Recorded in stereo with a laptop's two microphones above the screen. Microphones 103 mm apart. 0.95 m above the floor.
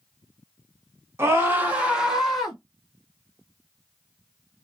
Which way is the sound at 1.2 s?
25° right (ahead or behind).